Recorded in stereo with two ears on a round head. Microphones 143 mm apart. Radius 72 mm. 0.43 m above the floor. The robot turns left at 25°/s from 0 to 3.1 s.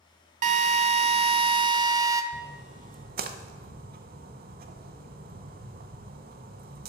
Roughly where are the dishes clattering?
I don't hear dishes clattering.